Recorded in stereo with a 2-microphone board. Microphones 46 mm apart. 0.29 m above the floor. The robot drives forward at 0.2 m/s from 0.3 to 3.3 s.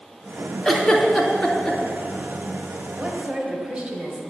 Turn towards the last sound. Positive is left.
turn(degrees=-20)  # may be behind; listen again after turning